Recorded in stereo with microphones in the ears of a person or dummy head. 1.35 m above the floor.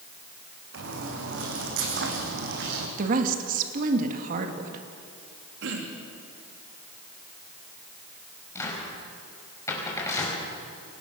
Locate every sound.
0.7 s footsteps: 75° right (ahead or behind), 4.5 m; by 2.9 s 70° right (ahead or behind), 4 m
3.0 s a woman speaking: 55° right (ahead or behind), 2 m
5.6 s throat clearing: 70° right (ahead or behind), 3 m
8.6 s a cupboard door: 15° left (ahead or behind), 5 m